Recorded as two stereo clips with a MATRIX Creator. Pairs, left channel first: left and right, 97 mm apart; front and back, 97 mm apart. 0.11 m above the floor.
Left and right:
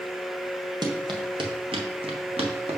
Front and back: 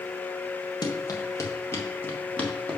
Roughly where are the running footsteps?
Ahead right.